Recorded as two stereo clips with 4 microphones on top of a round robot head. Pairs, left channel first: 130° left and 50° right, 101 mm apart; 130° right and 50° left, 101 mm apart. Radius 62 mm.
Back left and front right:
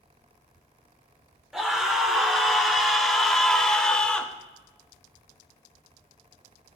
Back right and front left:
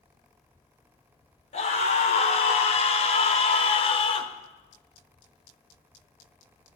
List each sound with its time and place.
1.5 s a scream: 135° right, 3 m; by 4.3 s 150° right, 1.6 m